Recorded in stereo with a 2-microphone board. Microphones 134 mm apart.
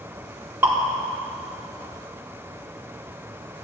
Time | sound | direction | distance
0.6 | dripping | 15° right (ahead or behind) | 4 m